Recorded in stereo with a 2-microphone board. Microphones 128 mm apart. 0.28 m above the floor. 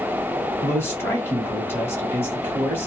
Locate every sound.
0.6 s a man speaking: 20° left (ahead or behind), 1.3 m